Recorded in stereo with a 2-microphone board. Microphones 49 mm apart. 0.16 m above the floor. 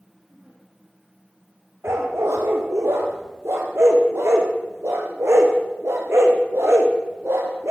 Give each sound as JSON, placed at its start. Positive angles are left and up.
{"t": 0.3, "sound": "a giggle", "side_deg": -30, "distance_m": 8.0}
{"t": 1.8, "sound": "a dog barking", "side_deg": -75, "distance_m": 4.0}